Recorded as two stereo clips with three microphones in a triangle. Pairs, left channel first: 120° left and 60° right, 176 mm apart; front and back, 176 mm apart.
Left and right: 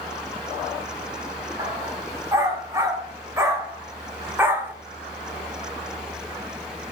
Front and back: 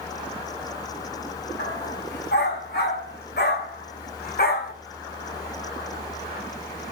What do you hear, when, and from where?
1.6 s a dog barking: 15° left, 3 m